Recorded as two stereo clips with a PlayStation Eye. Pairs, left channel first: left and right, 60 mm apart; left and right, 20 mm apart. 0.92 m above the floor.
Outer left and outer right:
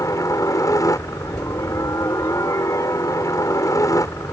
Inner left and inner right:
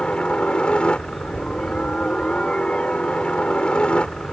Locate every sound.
0.0 s a helicopter: 65° left (ahead or behind)